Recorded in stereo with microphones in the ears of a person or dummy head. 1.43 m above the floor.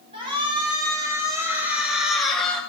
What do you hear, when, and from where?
0.1 s a shout: 40° right (ahead or behind), 4 m; by 2.6 s 5° left (ahead or behind), 3.5 m